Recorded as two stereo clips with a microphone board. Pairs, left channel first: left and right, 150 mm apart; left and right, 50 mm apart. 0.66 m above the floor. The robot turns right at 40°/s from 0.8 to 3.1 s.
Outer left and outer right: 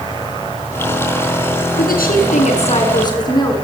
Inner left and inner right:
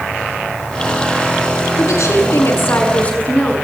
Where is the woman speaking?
100° left, 7.5 m; by 3.5 s 155° left, 7.5 m.